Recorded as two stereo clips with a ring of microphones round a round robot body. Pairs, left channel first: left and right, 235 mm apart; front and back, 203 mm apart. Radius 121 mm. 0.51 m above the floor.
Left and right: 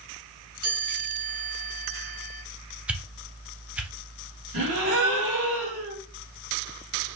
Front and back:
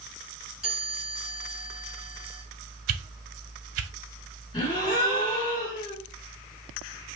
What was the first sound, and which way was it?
A chime, 95° right.